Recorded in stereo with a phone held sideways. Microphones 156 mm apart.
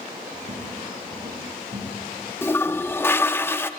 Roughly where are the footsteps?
Right.